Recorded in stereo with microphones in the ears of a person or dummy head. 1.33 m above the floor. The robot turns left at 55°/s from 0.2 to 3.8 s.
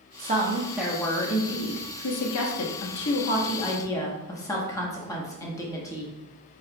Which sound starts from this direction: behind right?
A woman speaking, at 0.2 s.